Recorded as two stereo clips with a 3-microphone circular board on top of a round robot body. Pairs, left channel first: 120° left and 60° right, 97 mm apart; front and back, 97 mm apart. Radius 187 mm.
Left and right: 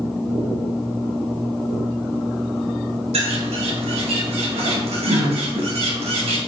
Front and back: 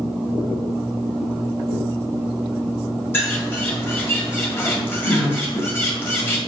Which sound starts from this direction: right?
A bird, at 3.1 s.